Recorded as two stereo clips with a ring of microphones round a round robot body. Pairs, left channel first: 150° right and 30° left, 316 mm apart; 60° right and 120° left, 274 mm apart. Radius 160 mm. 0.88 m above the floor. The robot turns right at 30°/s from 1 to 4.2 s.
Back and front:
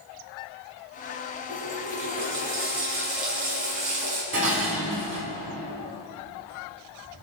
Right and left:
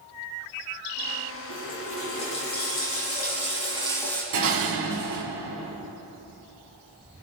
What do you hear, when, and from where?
1.5 s a running tap: 55° right, 6.5 m; by 4.2 s 25° left, 6.5 m
4.3 s dishes clattering: 85° left, 5 m